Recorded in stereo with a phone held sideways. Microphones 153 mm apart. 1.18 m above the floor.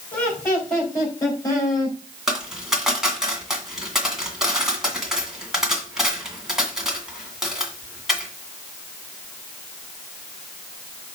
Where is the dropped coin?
5° right (ahead or behind), 2 m.